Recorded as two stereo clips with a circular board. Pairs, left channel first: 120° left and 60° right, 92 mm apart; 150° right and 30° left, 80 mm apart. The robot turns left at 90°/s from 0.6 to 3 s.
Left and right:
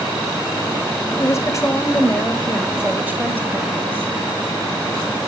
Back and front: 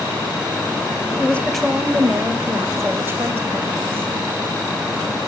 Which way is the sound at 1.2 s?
160° left.